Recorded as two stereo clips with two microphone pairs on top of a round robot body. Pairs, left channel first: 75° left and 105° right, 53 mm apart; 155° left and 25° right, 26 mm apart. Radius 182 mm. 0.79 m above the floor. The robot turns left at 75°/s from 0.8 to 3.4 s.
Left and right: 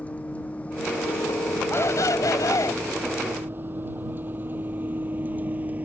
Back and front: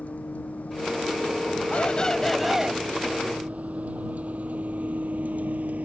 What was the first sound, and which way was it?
A vehicle, 140° left.